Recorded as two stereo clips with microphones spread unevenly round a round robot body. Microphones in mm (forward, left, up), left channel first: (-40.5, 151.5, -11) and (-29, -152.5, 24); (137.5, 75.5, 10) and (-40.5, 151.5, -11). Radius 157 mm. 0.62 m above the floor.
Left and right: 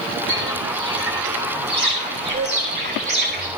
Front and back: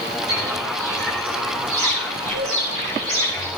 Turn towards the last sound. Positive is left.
turn(degrees=-145)